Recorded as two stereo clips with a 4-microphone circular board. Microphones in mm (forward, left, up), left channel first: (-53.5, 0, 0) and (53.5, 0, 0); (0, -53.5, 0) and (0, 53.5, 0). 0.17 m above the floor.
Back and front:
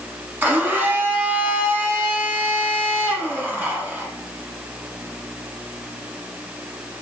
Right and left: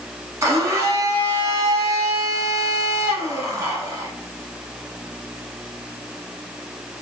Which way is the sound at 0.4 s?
60° left.